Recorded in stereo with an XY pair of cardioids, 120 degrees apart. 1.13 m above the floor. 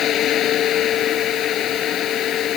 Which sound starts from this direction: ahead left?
A fan, at 0.0 s.